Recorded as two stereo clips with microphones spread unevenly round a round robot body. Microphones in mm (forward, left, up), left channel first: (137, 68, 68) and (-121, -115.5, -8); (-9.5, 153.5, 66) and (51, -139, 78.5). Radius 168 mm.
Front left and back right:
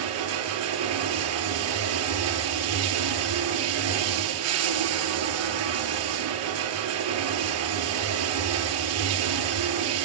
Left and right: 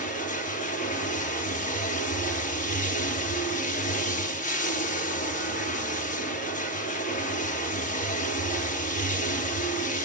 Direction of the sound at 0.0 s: 170° left.